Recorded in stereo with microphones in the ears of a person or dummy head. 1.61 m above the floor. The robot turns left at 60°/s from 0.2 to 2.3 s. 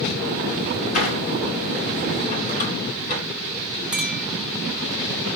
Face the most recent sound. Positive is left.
turn(degrees=-5)  # may be behind; listen again after turning